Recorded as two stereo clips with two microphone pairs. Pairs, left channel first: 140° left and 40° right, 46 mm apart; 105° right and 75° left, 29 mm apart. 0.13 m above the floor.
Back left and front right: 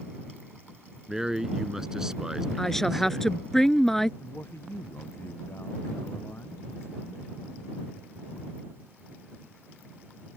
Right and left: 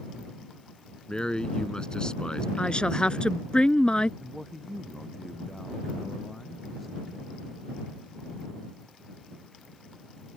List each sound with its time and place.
1.1 s a man speaking: 110° right
2.6 s a woman speaking: 140° right
4.2 s a man speaking: 170° left